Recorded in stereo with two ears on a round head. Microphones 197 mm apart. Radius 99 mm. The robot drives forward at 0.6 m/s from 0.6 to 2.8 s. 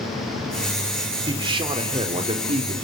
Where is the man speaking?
20° right (ahead or behind), 3.5 m; by 2.7 s 25° right (ahead or behind), 2.5 m.